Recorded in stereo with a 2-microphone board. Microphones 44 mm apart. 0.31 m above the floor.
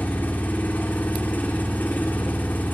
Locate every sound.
0.0 s an engine running: 45° left (ahead or behind), 9 m